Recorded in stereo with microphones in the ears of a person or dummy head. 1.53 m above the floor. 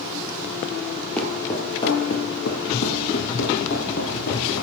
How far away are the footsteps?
About 2.5 m.